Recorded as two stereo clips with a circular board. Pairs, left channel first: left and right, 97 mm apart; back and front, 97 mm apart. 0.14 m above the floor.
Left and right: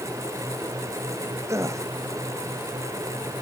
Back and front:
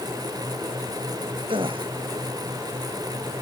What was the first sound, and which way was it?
A gasp, 30° right.